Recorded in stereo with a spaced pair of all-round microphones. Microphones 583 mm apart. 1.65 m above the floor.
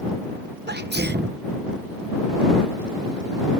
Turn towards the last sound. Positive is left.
turn(degrees=-15)  # may be behind; listen again after turning